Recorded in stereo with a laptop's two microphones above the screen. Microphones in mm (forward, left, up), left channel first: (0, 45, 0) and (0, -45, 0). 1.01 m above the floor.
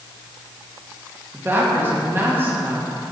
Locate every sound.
1.3 s a woman speaking: 25° right (ahead or behind), 1.4 m